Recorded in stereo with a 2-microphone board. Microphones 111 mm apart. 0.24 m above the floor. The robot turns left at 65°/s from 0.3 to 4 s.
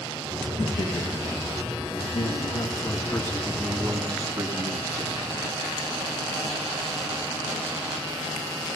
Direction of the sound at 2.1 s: 95° left.